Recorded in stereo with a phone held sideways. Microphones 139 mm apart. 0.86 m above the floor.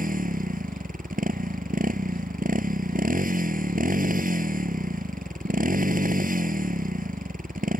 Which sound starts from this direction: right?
A motorcycle, at 0.0 s.